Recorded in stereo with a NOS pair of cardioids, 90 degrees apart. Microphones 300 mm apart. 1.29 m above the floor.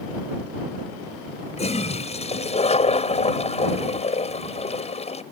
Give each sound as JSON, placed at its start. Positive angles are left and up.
{"t": 1.6, "sound": "a toilet flushing", "azimuth_deg": 20}